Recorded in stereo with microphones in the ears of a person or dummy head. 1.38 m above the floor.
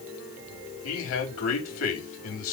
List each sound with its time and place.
0.8 s a man speaking: 85° left, 4 m